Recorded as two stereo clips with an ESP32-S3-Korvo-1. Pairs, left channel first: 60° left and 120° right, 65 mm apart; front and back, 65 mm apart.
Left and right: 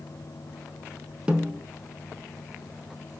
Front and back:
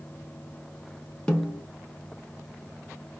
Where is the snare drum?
60° right, 0.7 m.